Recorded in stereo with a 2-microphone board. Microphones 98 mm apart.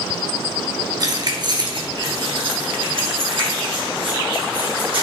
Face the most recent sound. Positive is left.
turn(degrees=-65)  # may be behind; listen again after turning